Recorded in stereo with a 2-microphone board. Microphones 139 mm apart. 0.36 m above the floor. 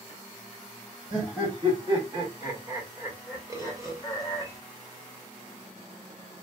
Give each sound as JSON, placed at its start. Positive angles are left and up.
{"t": 1.1, "sound": "laughter", "side_deg": -45, "distance_m": 1.8}
{"t": 3.5, "sound": "a bird", "side_deg": -25, "distance_m": 1.0}